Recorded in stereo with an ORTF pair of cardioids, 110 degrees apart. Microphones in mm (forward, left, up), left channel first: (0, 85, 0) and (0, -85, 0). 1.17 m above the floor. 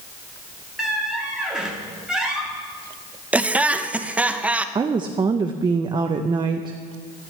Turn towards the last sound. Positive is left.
turn(degrees=-25)